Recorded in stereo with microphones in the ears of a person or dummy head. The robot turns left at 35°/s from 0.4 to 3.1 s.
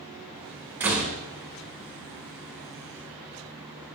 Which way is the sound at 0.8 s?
10° right (ahead or behind).